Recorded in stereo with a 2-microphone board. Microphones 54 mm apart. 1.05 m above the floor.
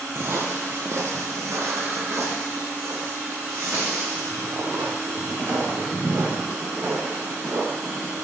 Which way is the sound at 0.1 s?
50° right (ahead or behind).